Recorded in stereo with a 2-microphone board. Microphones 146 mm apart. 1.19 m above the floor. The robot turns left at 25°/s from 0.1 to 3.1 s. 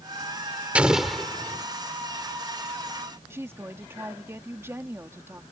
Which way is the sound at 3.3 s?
15° right (ahead or behind).